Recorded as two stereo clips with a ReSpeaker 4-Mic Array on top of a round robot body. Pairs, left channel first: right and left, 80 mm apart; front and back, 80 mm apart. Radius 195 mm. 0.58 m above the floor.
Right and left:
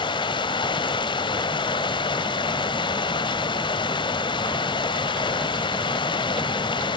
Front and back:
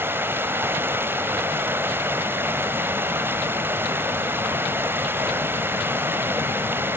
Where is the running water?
115° right, 1.6 m.